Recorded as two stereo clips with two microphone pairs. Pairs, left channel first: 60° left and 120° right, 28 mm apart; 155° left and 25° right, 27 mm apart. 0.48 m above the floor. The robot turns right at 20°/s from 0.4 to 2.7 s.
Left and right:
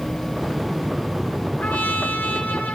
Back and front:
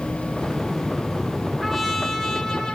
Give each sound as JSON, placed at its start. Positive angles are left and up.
{"t": 1.6, "sound": "a trumpet", "azimuth_deg": 65, "distance_m": 2.5}